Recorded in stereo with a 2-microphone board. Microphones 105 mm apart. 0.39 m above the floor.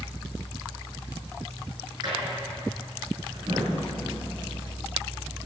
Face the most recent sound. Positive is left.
turn(degrees=-45)  # may be behind; listen again after turning